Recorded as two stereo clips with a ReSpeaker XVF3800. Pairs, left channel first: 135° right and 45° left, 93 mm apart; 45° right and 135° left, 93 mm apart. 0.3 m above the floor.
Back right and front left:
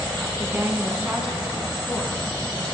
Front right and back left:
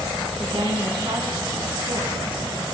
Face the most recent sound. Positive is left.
turn(degrees=150)